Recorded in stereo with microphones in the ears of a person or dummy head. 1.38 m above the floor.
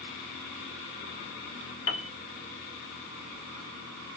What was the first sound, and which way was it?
A piano, 60° left (ahead or behind).